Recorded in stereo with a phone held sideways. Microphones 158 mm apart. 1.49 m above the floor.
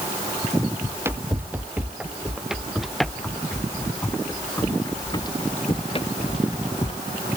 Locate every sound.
0.8 s running footsteps: 15° right (ahead or behind); by 7.0 s 50° left (ahead or behind)